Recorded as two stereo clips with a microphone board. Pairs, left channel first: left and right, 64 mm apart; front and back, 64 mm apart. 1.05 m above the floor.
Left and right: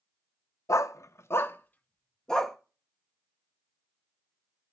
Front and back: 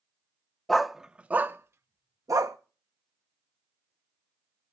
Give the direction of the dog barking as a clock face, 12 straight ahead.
9 o'clock.